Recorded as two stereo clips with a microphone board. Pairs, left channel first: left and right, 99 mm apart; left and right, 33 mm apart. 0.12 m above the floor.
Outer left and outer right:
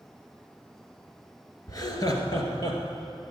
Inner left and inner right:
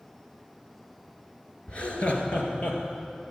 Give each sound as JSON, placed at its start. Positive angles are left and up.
{"t": 1.7, "sound": "laughter", "side_deg": 40, "distance_m": 1.9}